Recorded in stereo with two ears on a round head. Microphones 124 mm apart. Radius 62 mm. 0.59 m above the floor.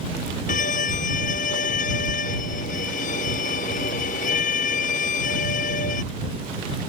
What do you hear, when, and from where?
0.5 s a violin: 60° left (ahead or behind)